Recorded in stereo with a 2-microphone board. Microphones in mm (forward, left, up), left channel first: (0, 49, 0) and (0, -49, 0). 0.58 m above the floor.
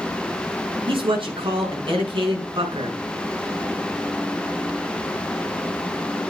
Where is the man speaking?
60° right (ahead or behind), 7.5 m.